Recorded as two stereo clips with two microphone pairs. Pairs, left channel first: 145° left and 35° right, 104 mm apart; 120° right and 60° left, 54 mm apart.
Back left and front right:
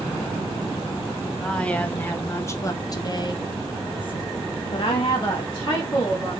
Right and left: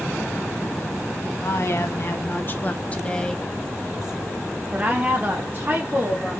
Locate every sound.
1.4 s a woman speaking: 135° right, 1.4 m; by 6.4 s 105° left, 2 m